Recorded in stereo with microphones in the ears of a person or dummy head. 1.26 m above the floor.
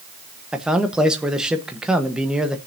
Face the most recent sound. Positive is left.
turn(degrees=-5)  # may be behind; listen again after turning